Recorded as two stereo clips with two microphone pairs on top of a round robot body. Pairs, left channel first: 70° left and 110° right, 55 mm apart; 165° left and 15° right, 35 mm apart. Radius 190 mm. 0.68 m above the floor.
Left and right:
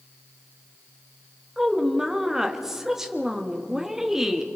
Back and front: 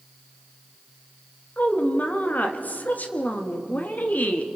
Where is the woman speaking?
170° left, 1.9 m.